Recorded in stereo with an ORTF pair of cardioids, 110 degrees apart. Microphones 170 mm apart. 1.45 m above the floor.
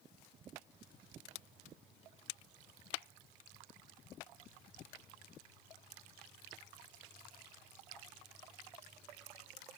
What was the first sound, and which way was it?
Only background noise.